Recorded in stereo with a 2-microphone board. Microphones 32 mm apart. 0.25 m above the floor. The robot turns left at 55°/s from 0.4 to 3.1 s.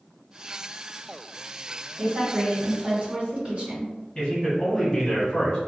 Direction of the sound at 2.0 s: 60° right.